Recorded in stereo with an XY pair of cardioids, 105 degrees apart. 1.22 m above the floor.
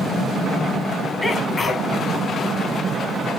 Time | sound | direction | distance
1.2 | a sneeze | 30° left | 1.5 m